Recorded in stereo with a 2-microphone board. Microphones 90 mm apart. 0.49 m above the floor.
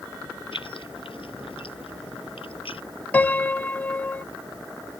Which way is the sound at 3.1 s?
20° left (ahead or behind).